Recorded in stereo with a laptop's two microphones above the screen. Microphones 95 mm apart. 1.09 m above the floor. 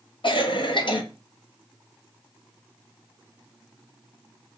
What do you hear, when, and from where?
0.2 s a cough: 60° left (ahead or behind), 0.6 m